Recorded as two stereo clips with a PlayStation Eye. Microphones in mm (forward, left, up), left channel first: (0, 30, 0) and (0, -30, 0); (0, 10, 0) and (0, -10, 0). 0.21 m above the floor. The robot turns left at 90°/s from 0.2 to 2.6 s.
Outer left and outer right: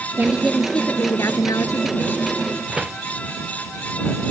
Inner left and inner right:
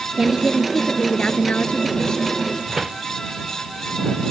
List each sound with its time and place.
0.2 s a woman speaking: 145° right; by 2.3 s 20° left
2.7 s a door slam: 15° right (ahead or behind)